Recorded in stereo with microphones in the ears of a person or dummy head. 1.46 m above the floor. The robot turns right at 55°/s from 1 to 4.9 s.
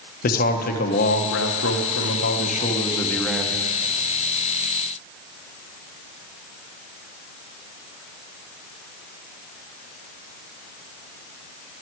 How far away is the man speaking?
About 1.2 m.